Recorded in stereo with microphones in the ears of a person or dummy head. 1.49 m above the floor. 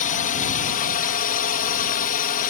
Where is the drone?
45° left (ahead or behind).